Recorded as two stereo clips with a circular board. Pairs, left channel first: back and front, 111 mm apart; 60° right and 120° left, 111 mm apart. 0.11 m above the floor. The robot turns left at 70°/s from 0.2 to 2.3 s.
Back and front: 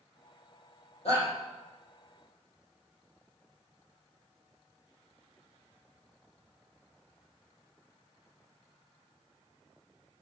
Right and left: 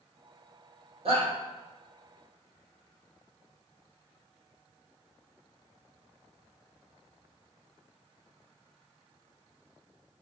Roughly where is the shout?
Behind left.